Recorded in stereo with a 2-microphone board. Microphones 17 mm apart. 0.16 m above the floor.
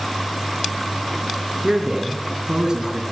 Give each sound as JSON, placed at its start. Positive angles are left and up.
{"t": 1.6, "sound": "a man speaking", "side_deg": -40, "distance_m": 1.8}